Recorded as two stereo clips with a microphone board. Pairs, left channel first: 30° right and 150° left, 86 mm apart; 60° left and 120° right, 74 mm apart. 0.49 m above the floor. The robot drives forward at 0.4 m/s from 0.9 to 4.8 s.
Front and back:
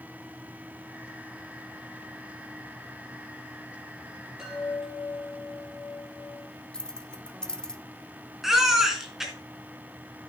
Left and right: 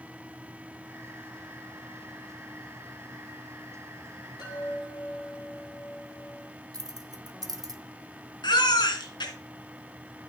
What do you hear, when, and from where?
4.4 s a chime: 70° left, 8.5 m
6.7 s keys jangling: 110° right, 0.9 m
8.4 s a baby crying: 65° left, 3 m